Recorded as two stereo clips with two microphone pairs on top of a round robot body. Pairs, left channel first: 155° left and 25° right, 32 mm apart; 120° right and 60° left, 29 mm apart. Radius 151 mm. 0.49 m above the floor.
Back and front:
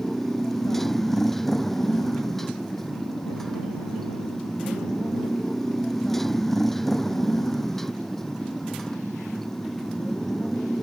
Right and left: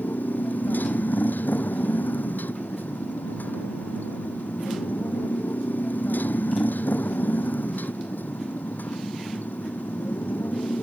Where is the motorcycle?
125° right.